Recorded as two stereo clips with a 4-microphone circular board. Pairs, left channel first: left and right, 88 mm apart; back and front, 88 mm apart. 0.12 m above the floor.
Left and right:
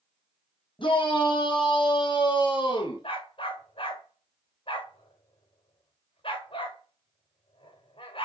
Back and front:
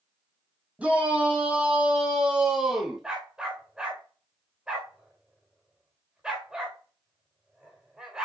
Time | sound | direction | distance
0.8 | a shout | 75° left | 4.5 m
3.0 | a dog barking | 80° left | 4.5 m